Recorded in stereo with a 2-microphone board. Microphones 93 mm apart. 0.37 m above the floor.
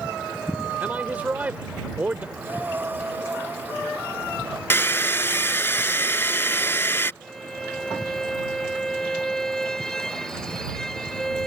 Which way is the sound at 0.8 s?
20° right (ahead or behind).